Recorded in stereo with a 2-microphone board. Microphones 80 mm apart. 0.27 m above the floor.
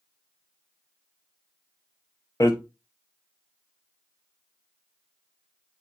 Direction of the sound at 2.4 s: 50° left (ahead or behind).